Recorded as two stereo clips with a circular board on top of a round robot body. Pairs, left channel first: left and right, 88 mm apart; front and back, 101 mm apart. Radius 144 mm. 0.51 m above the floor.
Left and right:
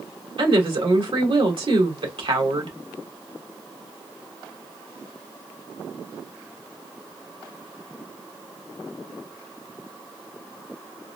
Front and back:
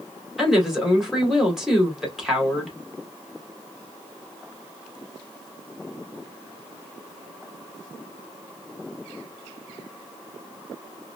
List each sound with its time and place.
0.4 s a woman speaking: 95° right, 2 m